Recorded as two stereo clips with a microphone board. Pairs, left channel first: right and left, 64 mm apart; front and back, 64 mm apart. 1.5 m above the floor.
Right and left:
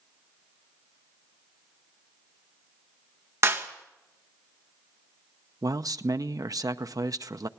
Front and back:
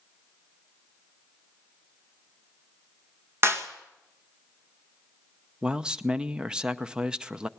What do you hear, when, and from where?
3.4 s a clap: 130° left, 1.9 m
5.6 s a man speaking: 105° left, 0.7 m